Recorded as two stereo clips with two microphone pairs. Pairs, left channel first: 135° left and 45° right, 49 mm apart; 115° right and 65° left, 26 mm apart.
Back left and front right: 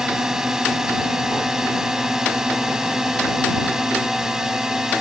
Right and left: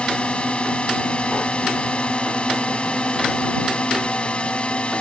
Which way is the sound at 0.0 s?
120° right.